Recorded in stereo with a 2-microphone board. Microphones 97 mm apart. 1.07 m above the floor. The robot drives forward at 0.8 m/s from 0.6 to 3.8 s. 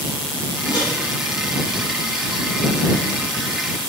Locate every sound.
0.7 s a microwave: 55° left (ahead or behind), 8 m